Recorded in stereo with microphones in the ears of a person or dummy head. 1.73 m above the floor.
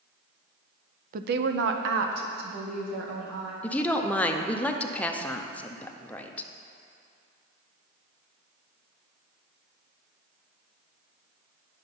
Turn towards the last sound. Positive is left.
turn(degrees=10)  # may be behind; listen again after turning